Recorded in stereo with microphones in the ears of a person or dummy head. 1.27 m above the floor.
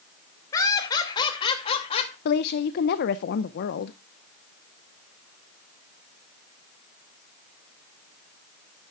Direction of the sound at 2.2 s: 55° left (ahead or behind).